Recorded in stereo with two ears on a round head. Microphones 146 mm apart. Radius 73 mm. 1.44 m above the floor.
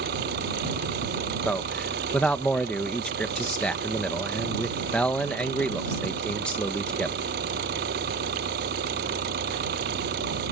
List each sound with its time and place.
0.0 s an engine running: 65° right (ahead or behind)
1.4 s a man speaking: 5° left (ahead or behind)